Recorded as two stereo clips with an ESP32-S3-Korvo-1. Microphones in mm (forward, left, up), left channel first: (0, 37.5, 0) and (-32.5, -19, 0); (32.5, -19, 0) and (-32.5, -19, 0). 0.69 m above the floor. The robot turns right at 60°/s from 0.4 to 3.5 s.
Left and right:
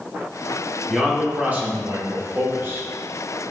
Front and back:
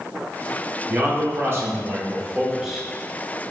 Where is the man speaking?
150° left, 0.9 m; by 3.4 s 60° right, 0.9 m.